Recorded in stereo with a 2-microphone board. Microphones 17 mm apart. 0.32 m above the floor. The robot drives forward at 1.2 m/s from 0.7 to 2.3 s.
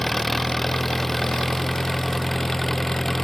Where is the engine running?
15° left (ahead or behind).